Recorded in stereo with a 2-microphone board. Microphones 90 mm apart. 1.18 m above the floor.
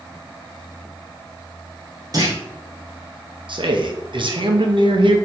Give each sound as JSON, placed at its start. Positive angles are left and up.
{"t": 2.1, "sound": "a clunk", "side_deg": -40, "distance_m": 1.0}
{"t": 3.5, "sound": "a man speaking", "side_deg": -65, "distance_m": 0.8}